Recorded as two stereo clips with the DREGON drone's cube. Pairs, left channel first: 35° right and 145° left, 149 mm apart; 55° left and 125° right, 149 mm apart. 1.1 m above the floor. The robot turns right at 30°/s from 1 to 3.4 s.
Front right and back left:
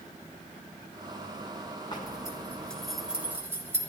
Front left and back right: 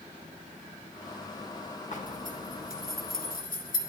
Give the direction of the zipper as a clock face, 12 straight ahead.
11 o'clock.